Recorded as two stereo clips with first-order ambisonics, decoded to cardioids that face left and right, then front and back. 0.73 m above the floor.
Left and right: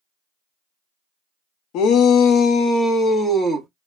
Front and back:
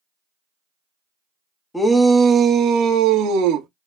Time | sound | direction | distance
1.7 | a shout | 80° left | 0.7 m